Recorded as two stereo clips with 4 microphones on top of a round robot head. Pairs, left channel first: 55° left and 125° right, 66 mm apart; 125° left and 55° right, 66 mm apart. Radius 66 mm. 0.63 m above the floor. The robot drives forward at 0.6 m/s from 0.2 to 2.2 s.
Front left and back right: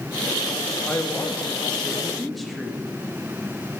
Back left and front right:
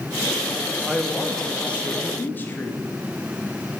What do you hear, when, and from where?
0.9 s a man speaking: 30° left, 1.0 m; by 2.8 s 145° left, 0.9 m